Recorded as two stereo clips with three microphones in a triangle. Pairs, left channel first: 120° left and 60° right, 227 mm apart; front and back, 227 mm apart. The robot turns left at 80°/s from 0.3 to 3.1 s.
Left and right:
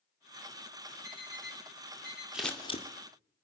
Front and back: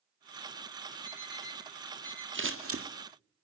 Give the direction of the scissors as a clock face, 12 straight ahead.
5 o'clock.